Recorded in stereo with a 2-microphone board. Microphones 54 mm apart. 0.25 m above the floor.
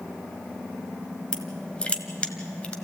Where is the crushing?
20° left (ahead or behind), 1.4 m.